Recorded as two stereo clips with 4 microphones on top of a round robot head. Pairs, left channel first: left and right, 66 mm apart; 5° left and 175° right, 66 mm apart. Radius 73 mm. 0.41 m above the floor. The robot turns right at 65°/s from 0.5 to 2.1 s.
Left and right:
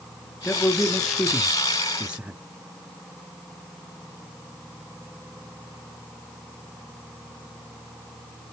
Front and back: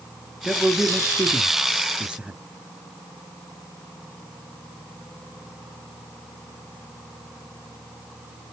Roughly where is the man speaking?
Behind left.